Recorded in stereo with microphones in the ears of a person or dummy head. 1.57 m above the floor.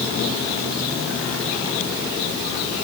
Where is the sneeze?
No sneeze in this recording.